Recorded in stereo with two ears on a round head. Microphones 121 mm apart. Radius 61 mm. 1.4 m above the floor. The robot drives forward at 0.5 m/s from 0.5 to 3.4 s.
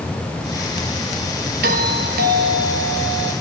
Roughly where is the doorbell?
Right.